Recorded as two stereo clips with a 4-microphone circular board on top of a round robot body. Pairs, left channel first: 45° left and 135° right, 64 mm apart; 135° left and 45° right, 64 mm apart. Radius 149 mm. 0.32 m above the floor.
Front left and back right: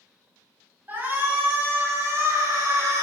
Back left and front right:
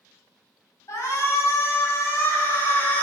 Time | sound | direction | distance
0.9 | a shout | 165° left | 4 m